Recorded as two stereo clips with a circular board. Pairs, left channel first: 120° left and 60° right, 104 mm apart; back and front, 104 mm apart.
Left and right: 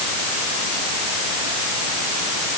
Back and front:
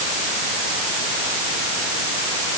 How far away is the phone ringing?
No phone ringing in this recording.